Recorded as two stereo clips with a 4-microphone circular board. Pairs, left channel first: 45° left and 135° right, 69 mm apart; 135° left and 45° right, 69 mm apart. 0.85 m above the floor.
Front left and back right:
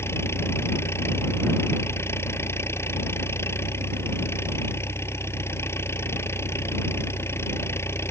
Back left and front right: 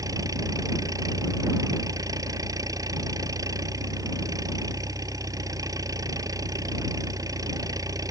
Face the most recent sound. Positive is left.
turn(degrees=-10)